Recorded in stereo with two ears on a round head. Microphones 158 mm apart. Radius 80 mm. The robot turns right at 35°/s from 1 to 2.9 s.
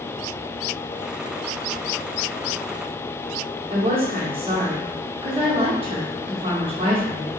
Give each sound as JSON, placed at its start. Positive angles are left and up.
{"t": 3.7, "sound": "a woman speaking", "side_deg": -30, "distance_m": 0.7}